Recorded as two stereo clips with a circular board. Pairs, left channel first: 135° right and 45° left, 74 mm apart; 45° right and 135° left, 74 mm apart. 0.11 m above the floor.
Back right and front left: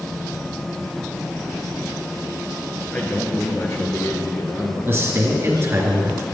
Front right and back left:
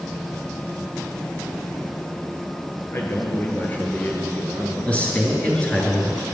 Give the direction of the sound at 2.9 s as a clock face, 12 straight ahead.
3 o'clock.